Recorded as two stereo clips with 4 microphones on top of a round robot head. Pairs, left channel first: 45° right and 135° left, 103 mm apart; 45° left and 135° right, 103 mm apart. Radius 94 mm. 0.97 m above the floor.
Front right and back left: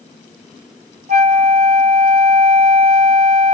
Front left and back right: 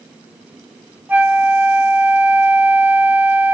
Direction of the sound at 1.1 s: 150° left.